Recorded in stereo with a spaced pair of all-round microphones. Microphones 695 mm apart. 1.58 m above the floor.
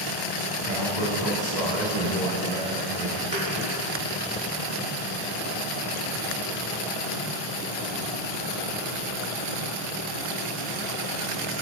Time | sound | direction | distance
0.7 | a man speaking | 85° right | 2.5 m
3.3 | a thud | 25° right (ahead or behind) | 4 m